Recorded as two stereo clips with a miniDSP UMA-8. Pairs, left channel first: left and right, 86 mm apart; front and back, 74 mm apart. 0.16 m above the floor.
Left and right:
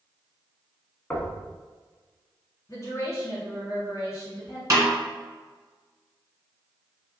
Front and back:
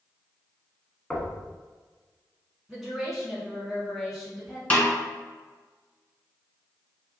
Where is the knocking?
60° left, 0.7 m.